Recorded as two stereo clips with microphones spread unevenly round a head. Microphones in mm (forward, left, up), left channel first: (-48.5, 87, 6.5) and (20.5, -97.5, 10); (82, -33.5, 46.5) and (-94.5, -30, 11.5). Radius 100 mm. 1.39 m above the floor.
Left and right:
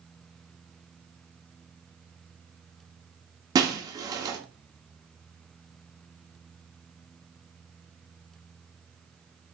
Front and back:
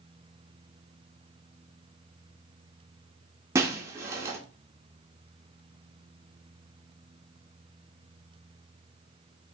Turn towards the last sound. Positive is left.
turn(degrees=-100)